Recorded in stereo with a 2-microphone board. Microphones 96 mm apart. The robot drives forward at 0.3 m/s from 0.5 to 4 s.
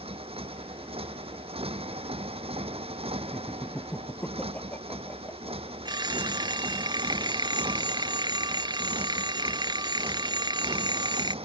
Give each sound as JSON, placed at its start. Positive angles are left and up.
{"t": 0.0, "sound": "a motorcycle", "side_deg": -80}
{"t": 3.3, "sound": "laughter", "side_deg": 15}
{"t": 5.8, "sound": "a phone ringing", "side_deg": -45}